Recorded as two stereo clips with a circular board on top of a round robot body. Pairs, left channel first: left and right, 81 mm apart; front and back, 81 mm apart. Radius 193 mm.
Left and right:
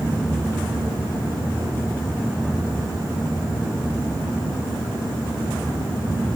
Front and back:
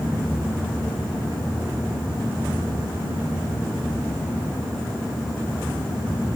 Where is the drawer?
I don't hear a drawer.